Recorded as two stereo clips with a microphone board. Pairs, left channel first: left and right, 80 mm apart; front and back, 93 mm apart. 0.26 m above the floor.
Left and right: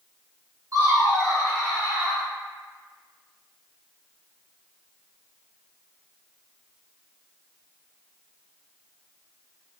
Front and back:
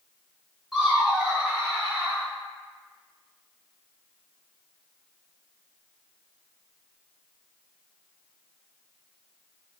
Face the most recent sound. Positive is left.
turn(degrees=-135)